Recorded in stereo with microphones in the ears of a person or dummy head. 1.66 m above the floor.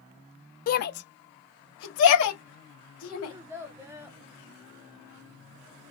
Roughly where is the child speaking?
Centre.